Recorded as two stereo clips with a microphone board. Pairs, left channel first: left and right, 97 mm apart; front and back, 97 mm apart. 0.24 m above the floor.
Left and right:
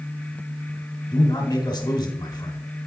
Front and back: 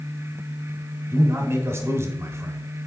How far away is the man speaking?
About 1.3 m.